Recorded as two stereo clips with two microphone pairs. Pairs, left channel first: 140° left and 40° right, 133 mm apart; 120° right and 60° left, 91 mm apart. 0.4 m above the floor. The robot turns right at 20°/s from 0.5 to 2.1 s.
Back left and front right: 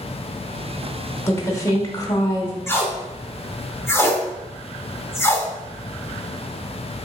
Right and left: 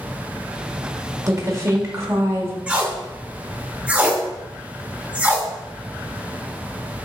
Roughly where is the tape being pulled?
Behind left.